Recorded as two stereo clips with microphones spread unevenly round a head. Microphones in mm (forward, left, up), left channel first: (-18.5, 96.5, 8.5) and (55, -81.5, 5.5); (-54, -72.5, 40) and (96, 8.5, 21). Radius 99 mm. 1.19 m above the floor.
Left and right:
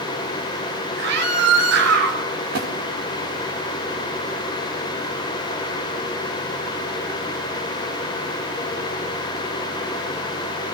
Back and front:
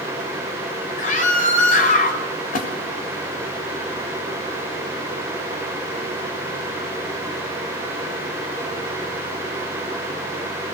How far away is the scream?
About 7 m.